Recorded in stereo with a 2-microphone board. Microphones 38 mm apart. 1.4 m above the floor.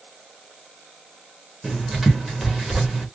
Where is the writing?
10° right (ahead or behind), 1.4 m.